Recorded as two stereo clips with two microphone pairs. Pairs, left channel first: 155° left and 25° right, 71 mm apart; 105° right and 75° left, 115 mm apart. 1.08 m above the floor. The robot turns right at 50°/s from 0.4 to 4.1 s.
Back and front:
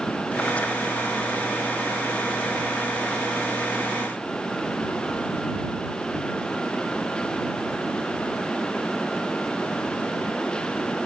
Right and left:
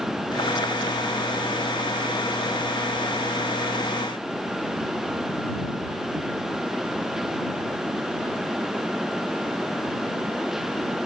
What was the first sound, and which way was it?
Only background noise.